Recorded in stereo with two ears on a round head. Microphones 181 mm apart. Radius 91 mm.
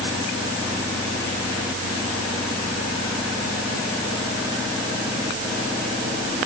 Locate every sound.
Only background noise.